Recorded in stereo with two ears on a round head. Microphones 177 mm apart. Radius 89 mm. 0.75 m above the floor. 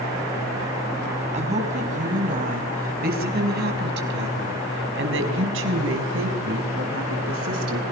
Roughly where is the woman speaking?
Right.